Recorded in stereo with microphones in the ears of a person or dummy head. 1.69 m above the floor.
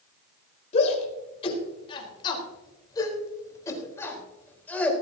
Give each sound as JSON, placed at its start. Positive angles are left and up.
{"t": 0.7, "sound": "a shout", "side_deg": 40, "distance_m": 4.5}